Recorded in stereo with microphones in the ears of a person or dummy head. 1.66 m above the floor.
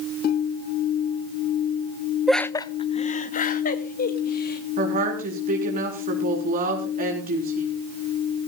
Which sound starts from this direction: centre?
Laughter, at 2.3 s.